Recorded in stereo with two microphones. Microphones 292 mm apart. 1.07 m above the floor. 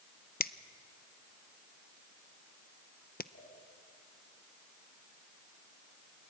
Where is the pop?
50° left (ahead or behind), 10 m.